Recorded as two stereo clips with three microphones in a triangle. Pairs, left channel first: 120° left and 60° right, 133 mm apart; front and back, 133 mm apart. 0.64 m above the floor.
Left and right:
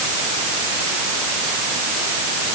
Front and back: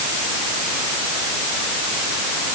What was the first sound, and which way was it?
Only background noise.